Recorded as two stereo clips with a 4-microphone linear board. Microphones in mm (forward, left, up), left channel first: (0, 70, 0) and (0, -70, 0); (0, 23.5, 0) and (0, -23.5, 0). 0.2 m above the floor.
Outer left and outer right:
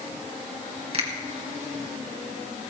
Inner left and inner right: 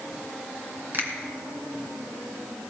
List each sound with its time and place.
0.9 s a finger snap: 50° right (ahead or behind), 2.5 m